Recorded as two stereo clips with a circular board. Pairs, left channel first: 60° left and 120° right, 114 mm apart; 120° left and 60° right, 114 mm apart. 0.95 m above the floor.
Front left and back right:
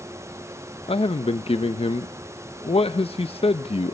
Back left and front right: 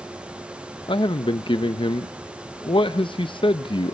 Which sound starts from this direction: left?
A man speaking, at 0.9 s.